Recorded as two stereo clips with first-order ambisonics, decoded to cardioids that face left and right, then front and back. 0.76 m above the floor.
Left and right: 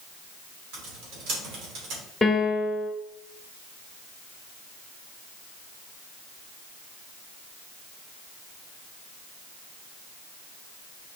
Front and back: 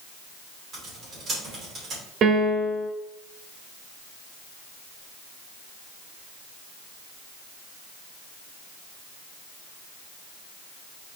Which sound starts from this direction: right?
Typing on a keyboard, at 0.7 s.